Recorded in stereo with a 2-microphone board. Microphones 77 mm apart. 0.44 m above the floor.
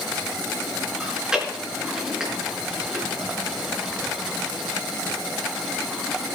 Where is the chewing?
10° right (ahead or behind), 4.5 m.